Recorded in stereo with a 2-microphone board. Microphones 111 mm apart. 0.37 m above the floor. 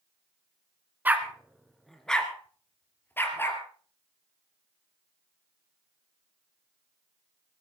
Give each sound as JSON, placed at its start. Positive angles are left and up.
{"t": 1.1, "sound": "a dog barking", "side_deg": -15, "distance_m": 1.5}